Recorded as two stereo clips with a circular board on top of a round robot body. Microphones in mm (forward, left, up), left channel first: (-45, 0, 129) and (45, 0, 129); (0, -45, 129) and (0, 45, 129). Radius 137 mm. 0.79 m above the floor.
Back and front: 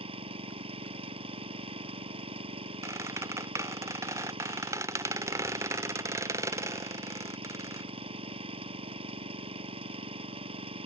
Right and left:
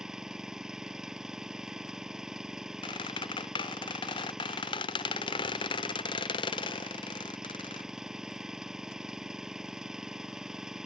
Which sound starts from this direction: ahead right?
A squeak, at 2.8 s.